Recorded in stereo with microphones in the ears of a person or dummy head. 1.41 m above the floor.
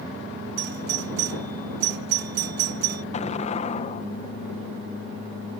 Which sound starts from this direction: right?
A doorbell, at 0.6 s.